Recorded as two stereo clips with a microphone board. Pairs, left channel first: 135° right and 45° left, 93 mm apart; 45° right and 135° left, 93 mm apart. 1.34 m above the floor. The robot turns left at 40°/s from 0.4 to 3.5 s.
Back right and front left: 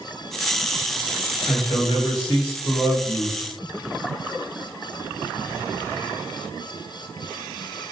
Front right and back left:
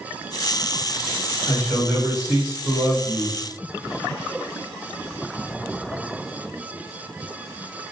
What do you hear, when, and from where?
1.5 s a man speaking: 110° right, 1.1 m; by 3.4 s 170° left, 1.1 m